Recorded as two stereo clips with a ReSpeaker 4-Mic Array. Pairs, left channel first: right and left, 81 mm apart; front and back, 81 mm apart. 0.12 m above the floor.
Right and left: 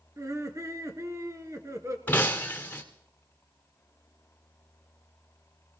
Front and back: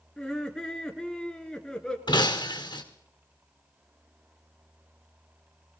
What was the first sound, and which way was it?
Laughter, 80° left.